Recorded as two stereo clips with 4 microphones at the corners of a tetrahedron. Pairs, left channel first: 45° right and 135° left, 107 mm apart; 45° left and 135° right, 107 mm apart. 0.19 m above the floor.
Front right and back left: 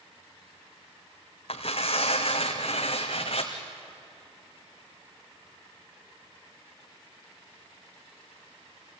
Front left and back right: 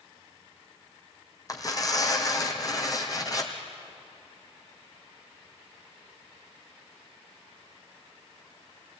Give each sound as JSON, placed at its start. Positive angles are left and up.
{"t": 1.5, "sound": "tearing paper", "azimuth_deg": -15, "distance_m": 2.5}